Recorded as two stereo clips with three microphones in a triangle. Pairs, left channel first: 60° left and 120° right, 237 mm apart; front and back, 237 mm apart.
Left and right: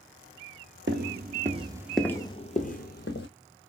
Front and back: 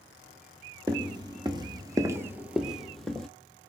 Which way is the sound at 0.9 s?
115° right.